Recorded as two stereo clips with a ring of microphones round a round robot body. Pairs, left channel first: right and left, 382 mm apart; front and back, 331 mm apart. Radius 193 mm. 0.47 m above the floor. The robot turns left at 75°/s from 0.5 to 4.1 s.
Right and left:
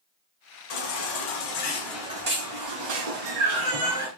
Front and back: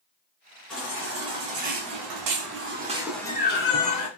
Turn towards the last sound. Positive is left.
turn(degrees=20)